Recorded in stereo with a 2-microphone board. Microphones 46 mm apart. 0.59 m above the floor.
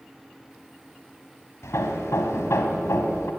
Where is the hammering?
85° left, 2.5 m.